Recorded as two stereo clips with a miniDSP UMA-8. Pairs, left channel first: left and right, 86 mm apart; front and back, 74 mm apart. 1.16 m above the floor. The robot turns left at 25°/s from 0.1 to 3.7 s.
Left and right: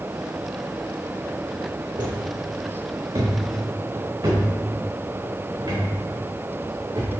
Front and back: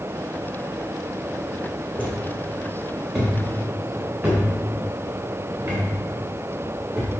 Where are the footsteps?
65° right, 3 m; by 7.1 s 115° right, 8.5 m.